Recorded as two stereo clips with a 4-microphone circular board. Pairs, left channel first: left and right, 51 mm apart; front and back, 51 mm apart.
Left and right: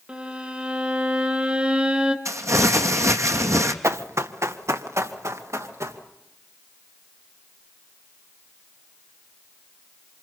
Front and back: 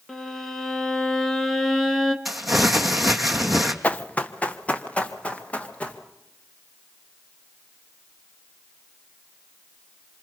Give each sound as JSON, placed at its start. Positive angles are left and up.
{"t": 0.1, "sound": "a violin", "azimuth_deg": -75, "distance_m": 1.2}
{"t": 2.2, "sound": "crumpling", "azimuth_deg": -90, "distance_m": 1.3}
{"t": 3.8, "sound": "running footsteps", "azimuth_deg": -65, "distance_m": 1.0}